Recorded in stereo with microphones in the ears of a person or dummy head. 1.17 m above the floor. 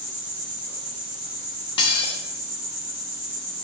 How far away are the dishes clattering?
About 0.9 m.